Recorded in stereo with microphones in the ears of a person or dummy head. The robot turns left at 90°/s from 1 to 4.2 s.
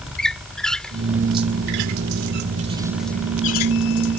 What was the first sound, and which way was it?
A squeak, 5° left (ahead or behind).